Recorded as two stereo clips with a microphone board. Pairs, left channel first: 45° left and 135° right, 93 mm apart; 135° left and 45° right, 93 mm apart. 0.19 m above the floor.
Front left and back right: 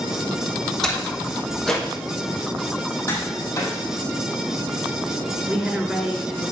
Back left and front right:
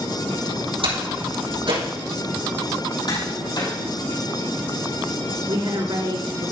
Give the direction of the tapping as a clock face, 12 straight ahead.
9 o'clock.